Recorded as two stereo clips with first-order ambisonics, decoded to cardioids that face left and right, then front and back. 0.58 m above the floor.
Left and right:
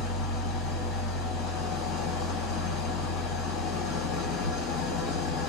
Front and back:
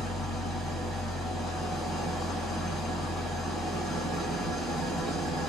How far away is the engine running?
About 1.2 m.